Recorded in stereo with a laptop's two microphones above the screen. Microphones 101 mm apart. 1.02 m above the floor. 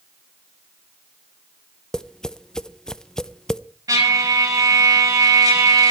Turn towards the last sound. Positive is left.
turn(degrees=-35)  # may be behind; listen again after turning